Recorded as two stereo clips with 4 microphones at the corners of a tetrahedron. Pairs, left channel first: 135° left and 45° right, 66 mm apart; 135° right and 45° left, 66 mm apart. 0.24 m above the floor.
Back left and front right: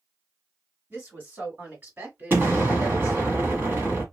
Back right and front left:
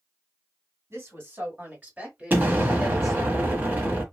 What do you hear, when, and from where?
0.9 s a woman speaking: 10° left, 2.5 m; by 3.3 s 60° right, 1.6 m
2.3 s an explosion: straight ahead, 1.2 m